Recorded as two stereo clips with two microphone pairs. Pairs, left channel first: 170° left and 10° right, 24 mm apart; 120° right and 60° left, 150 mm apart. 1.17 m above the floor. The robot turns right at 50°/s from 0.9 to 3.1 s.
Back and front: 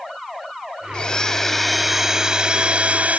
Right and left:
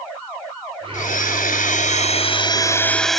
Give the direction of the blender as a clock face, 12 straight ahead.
5 o'clock.